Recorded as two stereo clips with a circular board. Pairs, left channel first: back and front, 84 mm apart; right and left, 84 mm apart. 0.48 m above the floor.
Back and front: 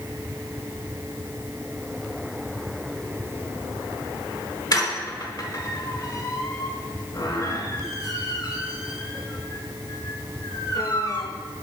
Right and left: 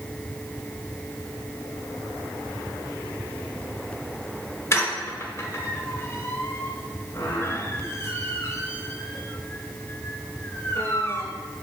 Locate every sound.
4.7 s a squeak: 145° right, 1.3 m